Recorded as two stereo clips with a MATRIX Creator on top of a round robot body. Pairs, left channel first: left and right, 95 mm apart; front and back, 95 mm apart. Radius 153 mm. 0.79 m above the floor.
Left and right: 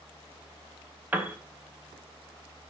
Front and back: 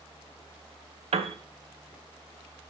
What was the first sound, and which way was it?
A piano, 165° right.